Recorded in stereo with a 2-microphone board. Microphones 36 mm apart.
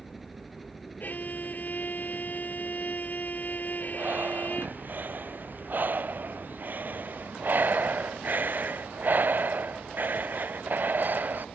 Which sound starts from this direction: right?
Breathing, at 3.9 s.